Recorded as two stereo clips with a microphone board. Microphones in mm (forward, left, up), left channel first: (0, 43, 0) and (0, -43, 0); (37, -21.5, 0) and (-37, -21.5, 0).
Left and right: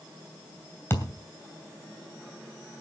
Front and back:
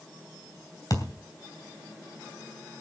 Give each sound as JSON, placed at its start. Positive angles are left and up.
{"t": 0.9, "sound": "a thud", "azimuth_deg": 30, "distance_m": 2.5}